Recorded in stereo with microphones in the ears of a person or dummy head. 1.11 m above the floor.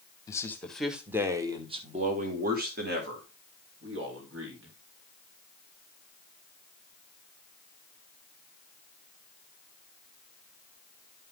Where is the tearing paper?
I don't hear tearing paper.